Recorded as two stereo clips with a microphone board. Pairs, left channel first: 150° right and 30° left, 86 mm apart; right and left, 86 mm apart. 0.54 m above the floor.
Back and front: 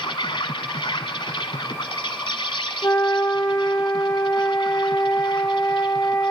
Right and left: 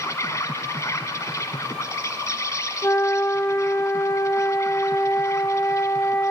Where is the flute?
125° right, 0.9 m.